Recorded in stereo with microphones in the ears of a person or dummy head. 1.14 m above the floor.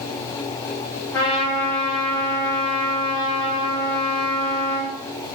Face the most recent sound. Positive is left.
turn(degrees=10)  # may be behind; listen again after turning